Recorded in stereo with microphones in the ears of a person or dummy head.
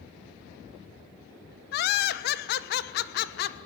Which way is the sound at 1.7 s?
55° left (ahead or behind).